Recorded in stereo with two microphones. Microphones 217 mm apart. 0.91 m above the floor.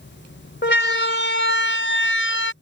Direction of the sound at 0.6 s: 55° left (ahead or behind).